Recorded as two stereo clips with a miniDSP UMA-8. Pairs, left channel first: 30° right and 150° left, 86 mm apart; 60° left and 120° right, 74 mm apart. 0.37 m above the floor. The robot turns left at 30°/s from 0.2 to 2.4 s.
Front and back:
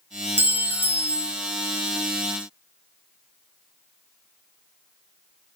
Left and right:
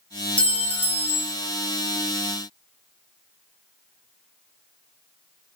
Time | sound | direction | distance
0.4 | a clink | 115° left | 0.6 m